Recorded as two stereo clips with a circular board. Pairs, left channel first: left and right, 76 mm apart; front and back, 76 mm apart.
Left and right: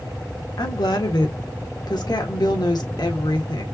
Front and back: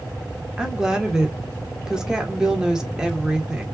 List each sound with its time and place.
0.6 s a woman speaking: 100° left, 1.4 m